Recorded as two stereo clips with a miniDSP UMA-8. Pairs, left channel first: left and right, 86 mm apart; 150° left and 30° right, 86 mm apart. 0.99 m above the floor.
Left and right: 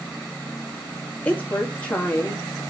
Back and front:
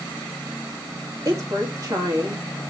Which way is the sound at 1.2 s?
15° left.